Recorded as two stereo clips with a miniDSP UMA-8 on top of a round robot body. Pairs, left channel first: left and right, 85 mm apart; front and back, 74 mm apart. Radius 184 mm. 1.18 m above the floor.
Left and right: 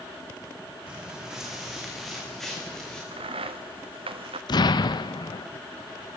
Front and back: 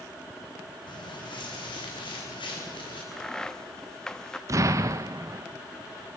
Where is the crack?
80° right, 1.0 m.